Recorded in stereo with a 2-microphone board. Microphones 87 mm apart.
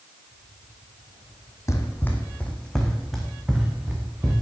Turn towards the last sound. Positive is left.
turn(degrees=-15)  # may be behind; listen again after turning